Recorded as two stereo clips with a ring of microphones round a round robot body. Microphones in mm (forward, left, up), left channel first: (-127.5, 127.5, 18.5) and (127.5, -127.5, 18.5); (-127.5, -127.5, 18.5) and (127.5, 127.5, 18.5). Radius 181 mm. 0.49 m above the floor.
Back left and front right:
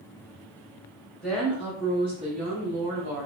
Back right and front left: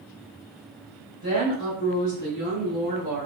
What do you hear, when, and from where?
1.2 s a woman speaking: 140° right, 1.5 m; by 3.3 s 50° right, 1.3 m